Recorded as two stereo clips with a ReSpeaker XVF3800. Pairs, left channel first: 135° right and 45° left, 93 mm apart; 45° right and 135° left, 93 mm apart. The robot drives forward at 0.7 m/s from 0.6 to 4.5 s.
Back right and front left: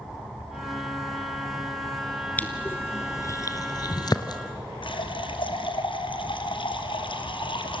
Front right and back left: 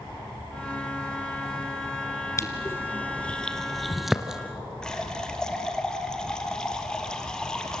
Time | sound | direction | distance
2.4 | crushing | 75° right | 1.5 m
4.8 | a running tap | 125° right | 2.0 m